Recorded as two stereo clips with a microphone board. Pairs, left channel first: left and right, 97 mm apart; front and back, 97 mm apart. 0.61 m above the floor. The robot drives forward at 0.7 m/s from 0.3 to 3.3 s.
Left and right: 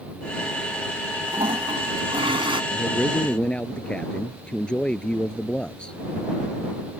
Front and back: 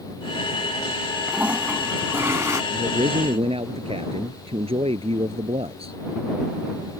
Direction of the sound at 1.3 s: 105° right.